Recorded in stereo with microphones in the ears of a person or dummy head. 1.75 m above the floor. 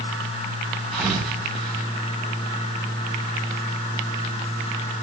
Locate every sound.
0.9 s a thud: 10° right (ahead or behind), 3.5 m